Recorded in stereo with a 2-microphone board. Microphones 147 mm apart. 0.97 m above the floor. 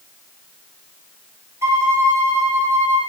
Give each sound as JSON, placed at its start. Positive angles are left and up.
{"t": 1.6, "sound": "a violin", "side_deg": -20, "distance_m": 2.0}